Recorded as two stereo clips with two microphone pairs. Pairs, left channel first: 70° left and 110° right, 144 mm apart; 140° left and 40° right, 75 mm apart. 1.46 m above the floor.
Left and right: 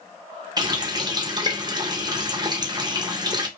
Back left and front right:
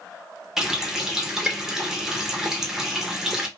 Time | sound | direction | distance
0.6 | a running tap | 120° right | 0.5 m